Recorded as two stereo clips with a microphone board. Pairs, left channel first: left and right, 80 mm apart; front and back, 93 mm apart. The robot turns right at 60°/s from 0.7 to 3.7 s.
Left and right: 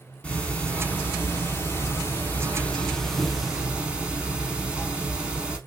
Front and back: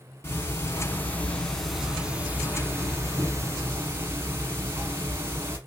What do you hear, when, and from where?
0.2 s ticking: 30° left, 0.9 m; by 5.6 s 150° right, 0.9 m